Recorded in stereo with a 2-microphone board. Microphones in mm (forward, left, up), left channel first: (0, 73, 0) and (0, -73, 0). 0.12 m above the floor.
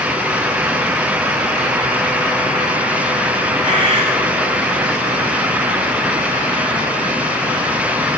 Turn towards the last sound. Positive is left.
turn(degrees=-55)  # may be behind; listen again after turning